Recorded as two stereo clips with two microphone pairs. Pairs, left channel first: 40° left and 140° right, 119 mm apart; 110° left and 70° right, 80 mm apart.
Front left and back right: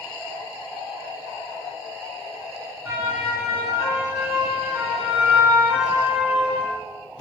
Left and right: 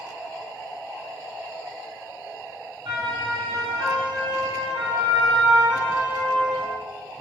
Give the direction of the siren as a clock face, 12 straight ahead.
3 o'clock.